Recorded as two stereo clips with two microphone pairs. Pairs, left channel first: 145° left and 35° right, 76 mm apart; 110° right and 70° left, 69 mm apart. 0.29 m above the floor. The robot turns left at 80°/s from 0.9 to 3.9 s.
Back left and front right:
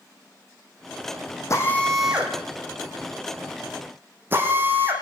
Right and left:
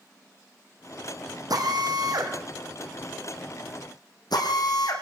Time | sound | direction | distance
1.5 | a drill | 95° left | 5.5 m